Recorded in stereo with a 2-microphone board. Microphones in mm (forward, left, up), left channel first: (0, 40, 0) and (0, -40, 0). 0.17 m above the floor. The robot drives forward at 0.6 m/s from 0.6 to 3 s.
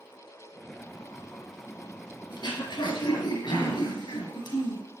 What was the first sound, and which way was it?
Throat clearing, 60° left (ahead or behind).